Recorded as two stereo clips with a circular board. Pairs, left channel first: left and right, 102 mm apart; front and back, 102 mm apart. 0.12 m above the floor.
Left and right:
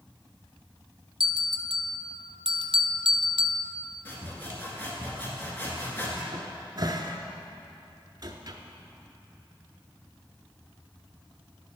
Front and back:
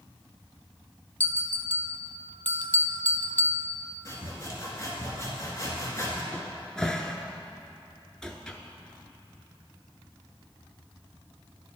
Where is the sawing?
35° left, 1.6 m.